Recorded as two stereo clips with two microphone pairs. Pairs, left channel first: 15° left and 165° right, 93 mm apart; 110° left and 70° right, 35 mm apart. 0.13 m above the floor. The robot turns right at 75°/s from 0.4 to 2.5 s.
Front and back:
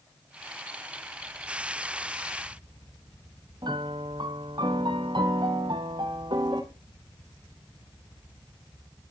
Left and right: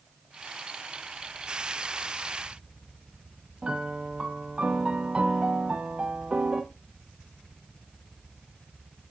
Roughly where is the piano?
Behind right.